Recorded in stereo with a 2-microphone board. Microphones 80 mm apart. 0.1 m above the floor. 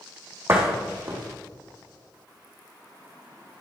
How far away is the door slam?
About 4 m.